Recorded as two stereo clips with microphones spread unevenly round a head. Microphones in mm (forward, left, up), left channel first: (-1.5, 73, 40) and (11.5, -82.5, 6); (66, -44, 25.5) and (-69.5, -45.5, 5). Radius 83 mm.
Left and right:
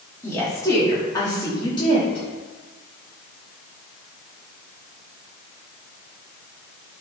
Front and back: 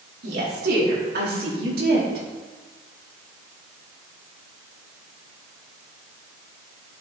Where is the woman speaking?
170° left, 4.5 m; by 2.2 s 155° left, 4 m.